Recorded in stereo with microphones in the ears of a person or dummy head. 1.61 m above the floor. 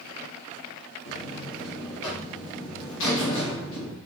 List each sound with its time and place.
1.1 s a buzzer: 65° left (ahead or behind), 1.0 m